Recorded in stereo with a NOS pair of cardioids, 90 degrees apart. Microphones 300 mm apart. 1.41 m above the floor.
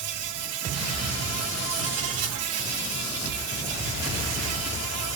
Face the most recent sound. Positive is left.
turn(degrees=-55)